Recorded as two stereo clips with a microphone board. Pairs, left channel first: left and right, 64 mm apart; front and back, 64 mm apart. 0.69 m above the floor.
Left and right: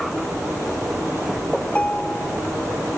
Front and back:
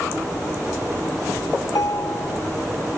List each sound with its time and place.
1.6 s a ringtone: 20° left